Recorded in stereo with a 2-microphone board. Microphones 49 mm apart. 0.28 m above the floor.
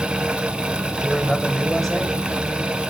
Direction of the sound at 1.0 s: 5° left (ahead or behind).